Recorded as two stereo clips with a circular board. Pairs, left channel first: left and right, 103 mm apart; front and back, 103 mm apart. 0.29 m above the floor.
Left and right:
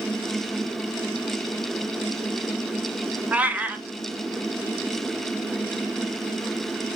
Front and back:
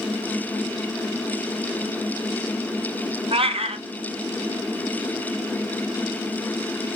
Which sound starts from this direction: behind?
A cat meowing, at 3.3 s.